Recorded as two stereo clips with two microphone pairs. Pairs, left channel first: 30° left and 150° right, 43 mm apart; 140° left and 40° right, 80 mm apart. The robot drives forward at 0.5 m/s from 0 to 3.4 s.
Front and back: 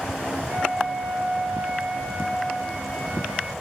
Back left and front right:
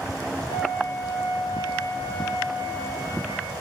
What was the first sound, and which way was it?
A flute, 150° left.